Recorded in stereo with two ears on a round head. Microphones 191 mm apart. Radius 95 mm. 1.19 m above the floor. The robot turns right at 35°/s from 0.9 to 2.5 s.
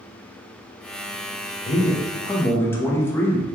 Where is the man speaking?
35° left (ahead or behind), 0.6 m; by 3.5 s 10° left (ahead or behind), 0.6 m.